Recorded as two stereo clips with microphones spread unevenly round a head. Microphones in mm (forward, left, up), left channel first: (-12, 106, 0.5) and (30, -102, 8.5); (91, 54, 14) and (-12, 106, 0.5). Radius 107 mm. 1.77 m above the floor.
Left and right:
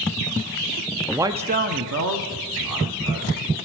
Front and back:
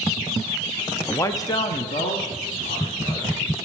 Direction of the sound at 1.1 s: 5° left.